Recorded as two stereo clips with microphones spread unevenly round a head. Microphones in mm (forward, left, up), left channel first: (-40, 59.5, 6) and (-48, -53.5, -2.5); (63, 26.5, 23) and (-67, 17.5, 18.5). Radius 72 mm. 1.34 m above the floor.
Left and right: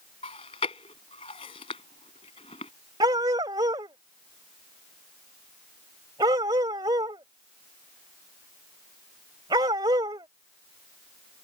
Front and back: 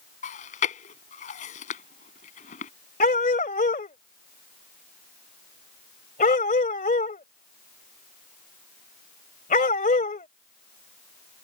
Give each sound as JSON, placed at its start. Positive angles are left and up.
{"t": 0.2, "sound": "chewing", "azimuth_deg": 30}
{"t": 3.0, "sound": "a dog barking", "azimuth_deg": -30}